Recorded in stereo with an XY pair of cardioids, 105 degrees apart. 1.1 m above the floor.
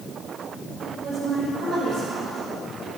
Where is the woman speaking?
65° right, 5.5 m; by 3.0 s 60° right, 6.5 m.